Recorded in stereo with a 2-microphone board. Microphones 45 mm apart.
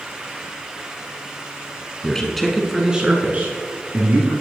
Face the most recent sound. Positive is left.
turn(degrees=-50)  # may be behind; listen again after turning